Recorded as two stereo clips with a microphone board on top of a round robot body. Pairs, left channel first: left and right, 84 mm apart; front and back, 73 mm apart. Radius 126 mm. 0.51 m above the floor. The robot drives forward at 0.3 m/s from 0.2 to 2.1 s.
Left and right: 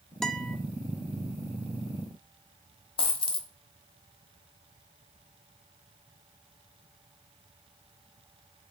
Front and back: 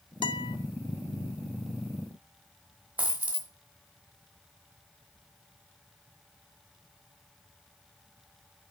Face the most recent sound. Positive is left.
turn(degrees=110)